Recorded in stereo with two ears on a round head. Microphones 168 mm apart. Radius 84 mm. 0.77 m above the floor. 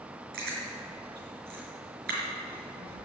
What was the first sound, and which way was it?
Chewing, 55° right (ahead or behind).